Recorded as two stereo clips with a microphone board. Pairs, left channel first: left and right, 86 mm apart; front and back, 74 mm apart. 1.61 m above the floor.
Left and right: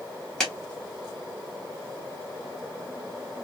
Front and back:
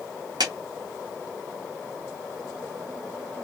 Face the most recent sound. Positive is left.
turn(degrees=175)